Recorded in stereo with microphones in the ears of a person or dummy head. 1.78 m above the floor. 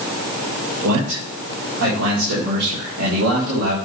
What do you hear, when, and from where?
0.8 s a man speaking: 75° right (ahead or behind), 4.5 m